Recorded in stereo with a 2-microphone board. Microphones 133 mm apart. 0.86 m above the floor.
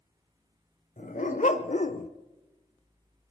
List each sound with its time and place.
1.0 s a dog barking: 75° left (ahead or behind), 1.6 m; by 2.1 s 65° left (ahead or behind), 0.7 m